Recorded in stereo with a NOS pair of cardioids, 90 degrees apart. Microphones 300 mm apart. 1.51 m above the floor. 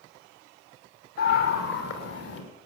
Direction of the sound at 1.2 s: 60° left.